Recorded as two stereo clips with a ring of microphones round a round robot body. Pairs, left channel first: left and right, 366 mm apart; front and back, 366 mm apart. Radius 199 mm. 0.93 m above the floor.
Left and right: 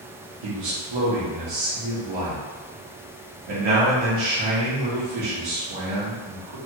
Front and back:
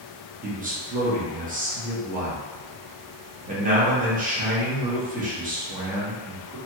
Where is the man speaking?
110° right, 1.1 m.